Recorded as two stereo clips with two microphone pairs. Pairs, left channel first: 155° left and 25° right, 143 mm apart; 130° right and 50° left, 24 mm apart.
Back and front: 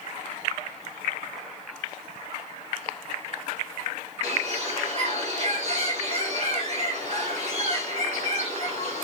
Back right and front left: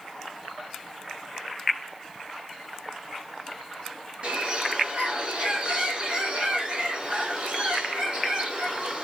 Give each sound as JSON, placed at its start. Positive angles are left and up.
{"t": 4.2, "sound": "a bird", "azimuth_deg": 15, "distance_m": 2.5}